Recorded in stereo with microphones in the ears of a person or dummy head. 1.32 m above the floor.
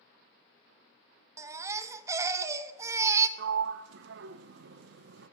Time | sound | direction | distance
1.4 | a baby crying | 20° right (ahead or behind) | 0.7 m
3.4 | a sliding door | 75° right (ahead or behind) | 0.6 m